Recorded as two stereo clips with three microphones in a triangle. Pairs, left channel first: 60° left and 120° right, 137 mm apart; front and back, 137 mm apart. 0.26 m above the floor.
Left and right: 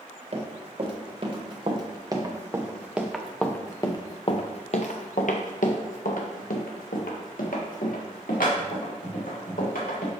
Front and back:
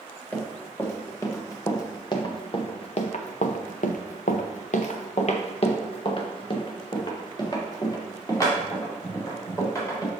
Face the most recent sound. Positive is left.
turn(degrees=70)